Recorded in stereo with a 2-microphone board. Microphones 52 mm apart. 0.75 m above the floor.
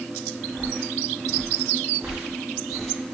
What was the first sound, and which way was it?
Footsteps, 30° right (ahead or behind).